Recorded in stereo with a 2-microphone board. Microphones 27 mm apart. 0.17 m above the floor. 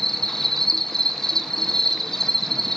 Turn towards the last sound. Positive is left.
turn(degrees=15)  # may be behind; listen again after turning